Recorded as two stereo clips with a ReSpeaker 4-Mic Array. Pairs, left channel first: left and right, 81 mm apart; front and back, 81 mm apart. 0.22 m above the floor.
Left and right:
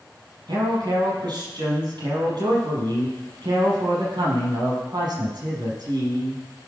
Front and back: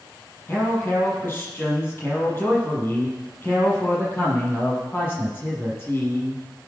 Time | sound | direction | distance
0.5 | a man speaking | 65° right | 7 m